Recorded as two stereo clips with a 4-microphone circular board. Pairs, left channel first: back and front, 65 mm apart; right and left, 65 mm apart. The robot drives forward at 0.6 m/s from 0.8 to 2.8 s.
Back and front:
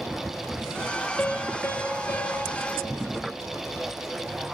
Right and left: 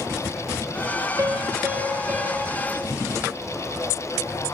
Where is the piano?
115° left, 0.6 m; by 2.6 s 155° left, 1.3 m.